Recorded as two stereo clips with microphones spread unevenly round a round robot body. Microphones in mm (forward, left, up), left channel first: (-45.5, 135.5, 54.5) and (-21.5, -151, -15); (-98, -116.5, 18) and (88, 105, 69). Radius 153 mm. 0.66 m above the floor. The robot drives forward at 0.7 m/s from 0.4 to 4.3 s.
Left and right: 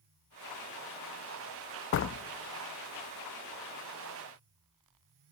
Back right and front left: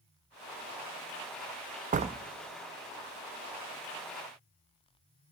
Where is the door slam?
100° left, 0.5 m; by 2.2 s 135° left, 0.6 m.